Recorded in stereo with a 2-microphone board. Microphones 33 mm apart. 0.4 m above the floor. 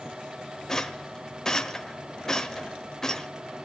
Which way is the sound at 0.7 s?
20° left (ahead or behind).